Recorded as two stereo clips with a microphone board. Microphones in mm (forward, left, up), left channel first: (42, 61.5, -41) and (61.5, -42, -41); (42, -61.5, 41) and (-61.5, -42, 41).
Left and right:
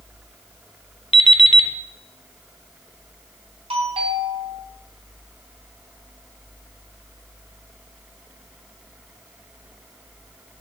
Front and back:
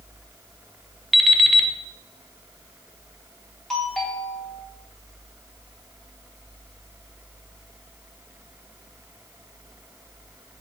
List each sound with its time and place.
1.1 s an alarm clock: 80° left, 0.9 m
3.7 s a doorbell: 95° right, 4.5 m